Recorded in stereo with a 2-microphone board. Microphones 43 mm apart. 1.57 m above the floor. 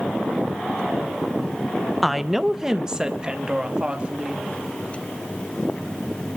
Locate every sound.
2.0 s a woman speaking: centre (ahead or behind), 1.0 m; by 4.5 s 25° right (ahead or behind), 3.5 m